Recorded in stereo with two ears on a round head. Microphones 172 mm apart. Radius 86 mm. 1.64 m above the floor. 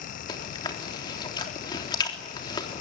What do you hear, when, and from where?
0.3 s chewing: 25° left (ahead or behind), 3.5 m